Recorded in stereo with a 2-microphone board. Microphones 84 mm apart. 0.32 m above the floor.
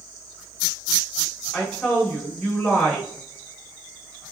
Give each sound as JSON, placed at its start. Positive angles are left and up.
{"t": 1.5, "sound": "a woman speaking", "side_deg": 5, "distance_m": 1.2}